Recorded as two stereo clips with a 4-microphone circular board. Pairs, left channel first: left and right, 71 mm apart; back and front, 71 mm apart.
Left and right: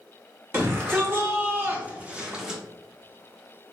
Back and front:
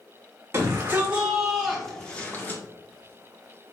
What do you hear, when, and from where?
0.5 s a shout: 45° right, 1.3 m; by 2.6 s 165° right, 1.0 m